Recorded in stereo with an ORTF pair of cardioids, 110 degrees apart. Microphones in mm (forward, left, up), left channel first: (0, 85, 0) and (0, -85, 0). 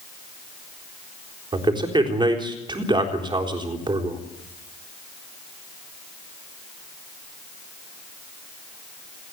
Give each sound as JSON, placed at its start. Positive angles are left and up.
{"t": 1.5, "sound": "a man speaking", "azimuth_deg": -25, "distance_m": 4.0}